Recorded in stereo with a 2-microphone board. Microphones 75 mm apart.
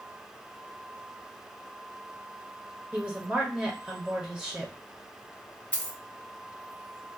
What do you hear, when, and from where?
2.9 s a woman speaking: 10° right (ahead or behind), 1.1 m
5.7 s a dropped coin: 20° left (ahead or behind), 0.7 m